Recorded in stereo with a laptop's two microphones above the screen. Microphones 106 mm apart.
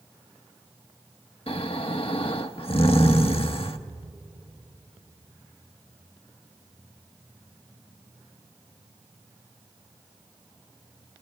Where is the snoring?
65° left (ahead or behind), 0.9 m.